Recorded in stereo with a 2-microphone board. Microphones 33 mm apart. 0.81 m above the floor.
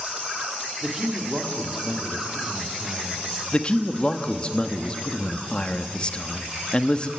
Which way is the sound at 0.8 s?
10° right (ahead or behind).